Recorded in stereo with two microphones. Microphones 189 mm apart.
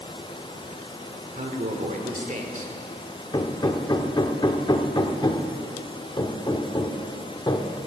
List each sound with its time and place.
1.4 s a man speaking: 40° right (ahead or behind), 1.4 m
3.3 s hammering: 25° left (ahead or behind), 0.8 m